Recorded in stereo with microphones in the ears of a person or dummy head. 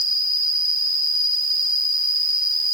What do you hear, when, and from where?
0.0 s an insect: 45° right (ahead or behind), 2.5 m